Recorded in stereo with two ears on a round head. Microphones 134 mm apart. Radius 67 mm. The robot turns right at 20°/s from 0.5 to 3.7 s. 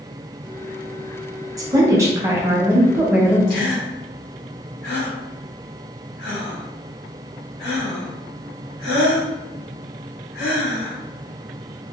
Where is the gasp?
65° left (ahead or behind), 1.6 m; by 11.0 s 70° left (ahead or behind), 1.6 m.